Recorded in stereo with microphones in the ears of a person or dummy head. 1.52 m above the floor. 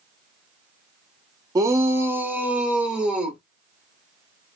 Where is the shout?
25° right (ahead or behind), 0.8 m; by 3.4 s 5° right (ahead or behind), 1.8 m.